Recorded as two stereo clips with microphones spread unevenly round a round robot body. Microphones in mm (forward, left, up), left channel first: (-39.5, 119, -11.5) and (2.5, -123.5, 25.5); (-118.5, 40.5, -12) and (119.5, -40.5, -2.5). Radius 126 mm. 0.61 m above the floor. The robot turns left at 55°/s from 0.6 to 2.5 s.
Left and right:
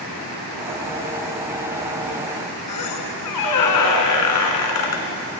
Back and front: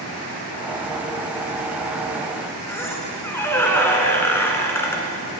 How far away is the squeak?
About 1.6 m.